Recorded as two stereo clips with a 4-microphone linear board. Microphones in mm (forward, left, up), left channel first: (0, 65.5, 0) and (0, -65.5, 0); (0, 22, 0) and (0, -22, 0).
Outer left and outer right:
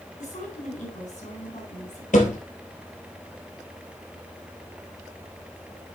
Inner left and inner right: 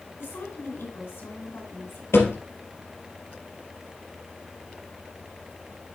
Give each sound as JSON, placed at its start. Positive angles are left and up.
{"t": 0.2, "sound": "a woman speaking", "side_deg": 70, "distance_m": 3.5}
{"t": 2.1, "sound": "a thud", "side_deg": 80, "distance_m": 3.0}